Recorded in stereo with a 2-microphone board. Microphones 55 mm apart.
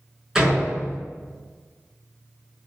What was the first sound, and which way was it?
A door slam, 10° right (ahead or behind).